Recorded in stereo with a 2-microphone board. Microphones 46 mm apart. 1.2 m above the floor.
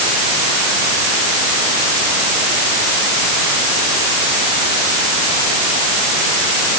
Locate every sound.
Only background noise.